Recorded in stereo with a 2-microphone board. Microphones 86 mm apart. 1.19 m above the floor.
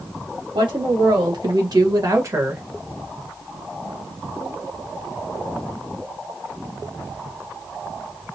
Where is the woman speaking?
70° right (ahead or behind), 2.0 m; by 2.6 s 25° right (ahead or behind), 1.1 m.